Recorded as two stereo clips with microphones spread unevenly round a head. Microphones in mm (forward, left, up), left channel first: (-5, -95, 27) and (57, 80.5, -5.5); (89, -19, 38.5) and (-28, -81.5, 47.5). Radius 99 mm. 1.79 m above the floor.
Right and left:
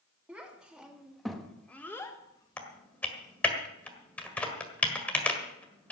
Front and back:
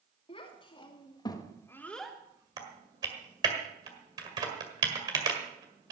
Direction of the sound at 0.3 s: 20° right.